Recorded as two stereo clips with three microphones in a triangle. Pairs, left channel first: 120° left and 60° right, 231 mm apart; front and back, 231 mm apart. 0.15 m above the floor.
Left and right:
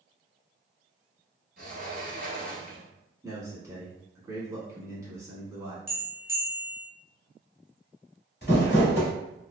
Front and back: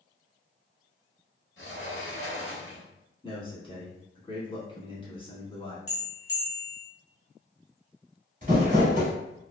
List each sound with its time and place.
1.6 s a sliding door: 10° right, 0.9 m
3.2 s a man speaking: 5° right, 1.1 m
5.9 s a bell: 10° right, 1.0 m
8.4 s crumpling: 140° left, 1.3 m